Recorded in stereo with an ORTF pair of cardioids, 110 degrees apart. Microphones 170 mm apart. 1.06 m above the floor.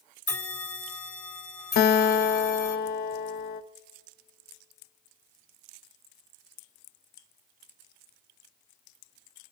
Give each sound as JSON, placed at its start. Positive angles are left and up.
{"t": 0.3, "sound": "a bell", "azimuth_deg": 20, "distance_m": 3.5}
{"t": 1.8, "sound": "a guitar", "azimuth_deg": 65, "distance_m": 0.7}